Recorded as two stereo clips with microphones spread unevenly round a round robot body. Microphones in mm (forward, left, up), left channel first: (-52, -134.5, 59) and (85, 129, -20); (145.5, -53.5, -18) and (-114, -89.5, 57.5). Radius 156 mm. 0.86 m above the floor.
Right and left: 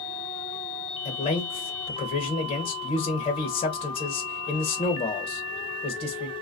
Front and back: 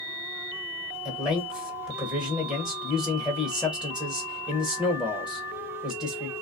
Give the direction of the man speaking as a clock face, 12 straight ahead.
1 o'clock.